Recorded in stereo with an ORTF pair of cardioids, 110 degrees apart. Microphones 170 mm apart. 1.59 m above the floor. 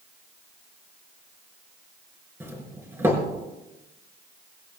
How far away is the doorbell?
About 4 m.